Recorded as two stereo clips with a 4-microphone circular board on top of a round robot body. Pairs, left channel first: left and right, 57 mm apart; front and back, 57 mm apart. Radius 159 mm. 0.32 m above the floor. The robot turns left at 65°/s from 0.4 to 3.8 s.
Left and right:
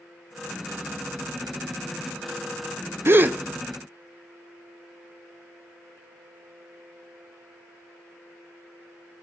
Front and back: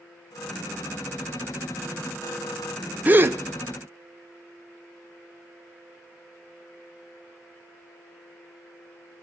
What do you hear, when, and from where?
3.0 s a gasp: 125° right, 0.5 m; by 3.4 s 145° right, 0.5 m